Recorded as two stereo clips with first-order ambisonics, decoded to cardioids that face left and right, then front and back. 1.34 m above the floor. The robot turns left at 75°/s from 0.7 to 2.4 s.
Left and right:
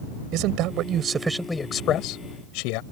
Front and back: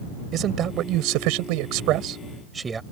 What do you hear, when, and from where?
0.3 s a man speaking: 125° right; by 2.8 s 105° left